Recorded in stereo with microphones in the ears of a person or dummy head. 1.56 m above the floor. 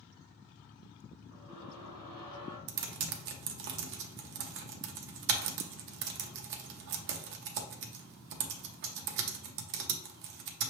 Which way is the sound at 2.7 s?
55° right (ahead or behind).